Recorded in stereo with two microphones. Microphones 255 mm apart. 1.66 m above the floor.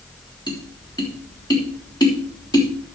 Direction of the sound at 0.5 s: 15° left (ahead or behind).